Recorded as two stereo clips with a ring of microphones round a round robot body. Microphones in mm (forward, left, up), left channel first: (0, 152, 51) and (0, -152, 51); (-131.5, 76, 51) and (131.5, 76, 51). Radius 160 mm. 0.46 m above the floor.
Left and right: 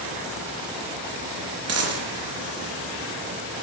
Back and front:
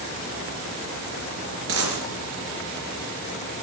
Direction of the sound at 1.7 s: 45° right.